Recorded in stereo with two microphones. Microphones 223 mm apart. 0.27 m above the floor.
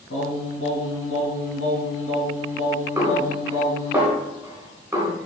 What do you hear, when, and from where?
0.1 s singing: 70° left (ahead or behind), 3 m
3.0 s a snare drum: 10° right (ahead or behind), 2.5 m